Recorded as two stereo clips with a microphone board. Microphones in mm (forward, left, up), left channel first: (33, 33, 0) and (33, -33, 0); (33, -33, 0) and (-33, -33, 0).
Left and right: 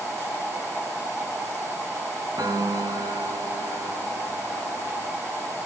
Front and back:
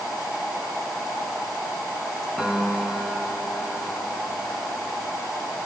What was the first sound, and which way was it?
A piano, 85° right.